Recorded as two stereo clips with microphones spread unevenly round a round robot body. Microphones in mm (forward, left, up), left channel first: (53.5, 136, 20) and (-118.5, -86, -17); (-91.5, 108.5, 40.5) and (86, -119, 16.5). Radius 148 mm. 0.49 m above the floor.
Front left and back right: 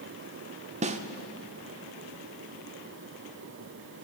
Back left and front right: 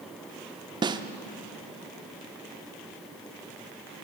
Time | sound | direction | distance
0.8 | a snare drum | 105° right | 0.6 m